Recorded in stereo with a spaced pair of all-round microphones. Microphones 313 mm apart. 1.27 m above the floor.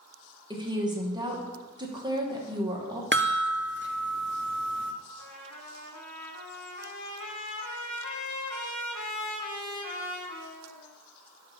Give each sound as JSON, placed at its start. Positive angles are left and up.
{"t": 0.5, "sound": "a woman speaking", "side_deg": -15, "distance_m": 1.2}
{"t": 3.1, "sound": "a chime", "side_deg": -35, "distance_m": 0.6}
{"t": 5.2, "sound": "a trumpet", "side_deg": 65, "distance_m": 1.0}